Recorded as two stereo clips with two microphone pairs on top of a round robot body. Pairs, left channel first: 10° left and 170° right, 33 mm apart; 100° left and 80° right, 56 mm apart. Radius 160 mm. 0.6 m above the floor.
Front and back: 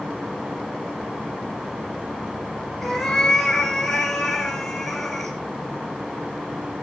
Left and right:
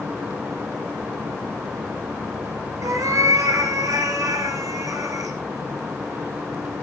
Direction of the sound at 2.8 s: 75° right.